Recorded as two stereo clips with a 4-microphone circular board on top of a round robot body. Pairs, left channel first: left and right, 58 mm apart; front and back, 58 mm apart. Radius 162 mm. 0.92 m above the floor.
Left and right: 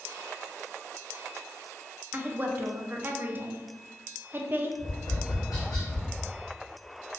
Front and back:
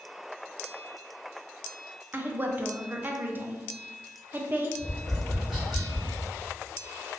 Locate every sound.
2.1 s a woman speaking: 135° right, 0.6 m
4.8 s tapping: 90° left, 0.9 m